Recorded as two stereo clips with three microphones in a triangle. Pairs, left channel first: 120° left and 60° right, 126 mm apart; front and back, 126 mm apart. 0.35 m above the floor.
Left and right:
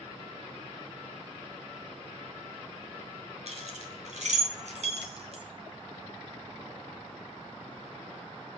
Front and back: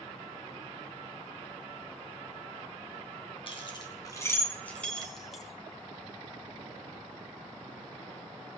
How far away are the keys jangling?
About 2.5 m.